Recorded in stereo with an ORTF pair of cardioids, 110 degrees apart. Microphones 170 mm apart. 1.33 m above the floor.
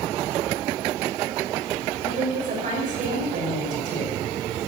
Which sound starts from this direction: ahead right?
A woman speaking, at 2.0 s.